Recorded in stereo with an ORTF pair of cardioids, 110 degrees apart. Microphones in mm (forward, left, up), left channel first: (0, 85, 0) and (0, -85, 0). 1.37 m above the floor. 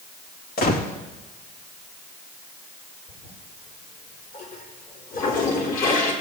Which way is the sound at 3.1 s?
55° left.